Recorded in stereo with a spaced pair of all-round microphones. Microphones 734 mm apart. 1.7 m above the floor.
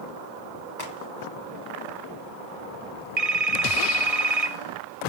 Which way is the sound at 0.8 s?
65° left (ahead or behind).